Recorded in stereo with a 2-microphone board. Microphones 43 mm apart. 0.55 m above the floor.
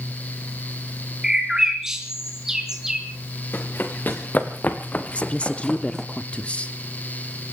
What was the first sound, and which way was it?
A bird, 15° right (ahead or behind).